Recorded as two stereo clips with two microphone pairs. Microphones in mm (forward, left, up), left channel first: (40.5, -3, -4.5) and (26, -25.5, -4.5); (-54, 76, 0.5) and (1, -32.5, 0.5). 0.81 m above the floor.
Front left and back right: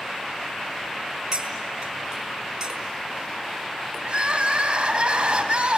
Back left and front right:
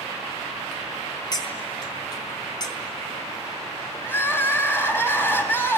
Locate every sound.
1.3 s cutlery clinking: 175° left, 4 m
4.0 s crying: 170° right, 4.5 m